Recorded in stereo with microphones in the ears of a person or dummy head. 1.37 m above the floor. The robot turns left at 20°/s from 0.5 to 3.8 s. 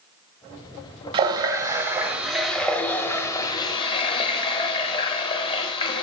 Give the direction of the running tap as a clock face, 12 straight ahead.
5 o'clock.